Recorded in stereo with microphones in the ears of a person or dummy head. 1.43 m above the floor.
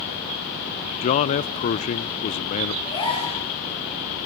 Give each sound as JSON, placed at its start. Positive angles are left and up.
{"t": 1.0, "sound": "a man speaking", "side_deg": 40, "distance_m": 0.5}
{"t": 2.9, "sound": "a gasp", "side_deg": 30, "distance_m": 9.0}